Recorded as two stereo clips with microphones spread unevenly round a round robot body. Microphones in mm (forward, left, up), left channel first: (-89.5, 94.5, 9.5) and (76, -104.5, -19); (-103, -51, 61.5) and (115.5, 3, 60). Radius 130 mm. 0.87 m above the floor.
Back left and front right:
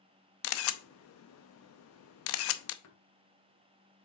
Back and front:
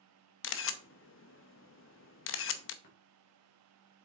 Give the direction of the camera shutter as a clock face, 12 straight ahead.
6 o'clock.